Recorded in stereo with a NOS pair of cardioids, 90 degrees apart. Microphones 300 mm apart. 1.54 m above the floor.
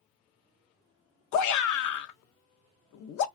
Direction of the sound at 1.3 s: 70° left.